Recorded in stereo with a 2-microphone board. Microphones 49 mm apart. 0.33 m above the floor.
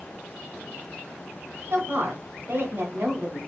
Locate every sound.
1.7 s a woman speaking: 50° right (ahead or behind), 1.5 m